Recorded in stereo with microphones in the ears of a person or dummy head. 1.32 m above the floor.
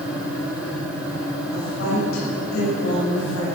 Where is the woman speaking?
80° left, 6.5 m.